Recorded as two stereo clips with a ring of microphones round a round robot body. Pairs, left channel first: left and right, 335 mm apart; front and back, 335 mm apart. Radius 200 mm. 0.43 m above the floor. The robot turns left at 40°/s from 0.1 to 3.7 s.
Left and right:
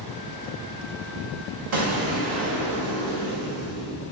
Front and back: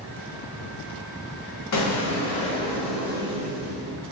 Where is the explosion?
40° right, 0.9 m; by 4.0 s 120° right, 0.9 m.